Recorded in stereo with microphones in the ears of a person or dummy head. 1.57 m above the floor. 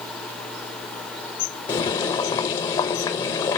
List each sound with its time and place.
1.7 s boiling: 30° left (ahead or behind), 1.0 m